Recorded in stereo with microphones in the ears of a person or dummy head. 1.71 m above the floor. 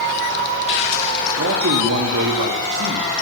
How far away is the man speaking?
About 4.5 m.